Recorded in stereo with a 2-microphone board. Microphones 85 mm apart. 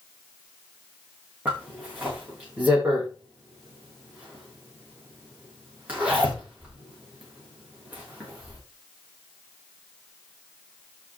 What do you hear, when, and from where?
1.4 s a zipper: 20° right (ahead or behind), 7 m